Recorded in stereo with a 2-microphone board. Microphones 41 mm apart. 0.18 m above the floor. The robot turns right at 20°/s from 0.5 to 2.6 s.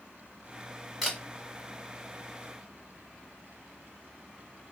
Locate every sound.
1.0 s a camera shutter: 5° right (ahead or behind), 1.3 m; by 1.2 s centre (ahead or behind), 1.3 m